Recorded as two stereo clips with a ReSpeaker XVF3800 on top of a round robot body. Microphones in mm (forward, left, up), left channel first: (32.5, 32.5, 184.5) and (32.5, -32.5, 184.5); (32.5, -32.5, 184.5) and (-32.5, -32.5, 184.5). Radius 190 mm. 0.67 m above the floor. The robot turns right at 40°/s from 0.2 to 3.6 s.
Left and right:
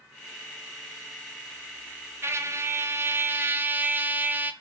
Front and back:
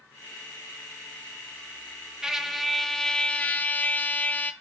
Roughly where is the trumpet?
Right.